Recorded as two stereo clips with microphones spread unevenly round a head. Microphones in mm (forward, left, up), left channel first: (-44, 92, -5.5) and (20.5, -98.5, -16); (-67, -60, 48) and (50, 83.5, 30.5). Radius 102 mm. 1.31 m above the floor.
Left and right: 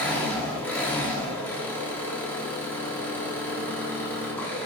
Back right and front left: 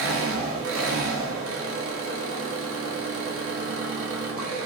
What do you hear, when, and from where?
0.0 s an engine running: 30° left, 1.3 m